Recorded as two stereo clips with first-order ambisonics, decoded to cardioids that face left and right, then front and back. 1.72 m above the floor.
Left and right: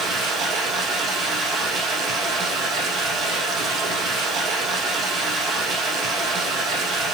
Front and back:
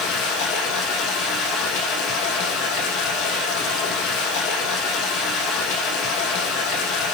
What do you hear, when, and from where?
0.0 s running water: 30° right, 5 m